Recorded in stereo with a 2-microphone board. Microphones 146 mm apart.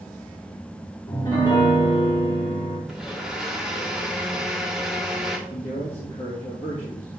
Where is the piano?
30° left (ahead or behind), 3 m.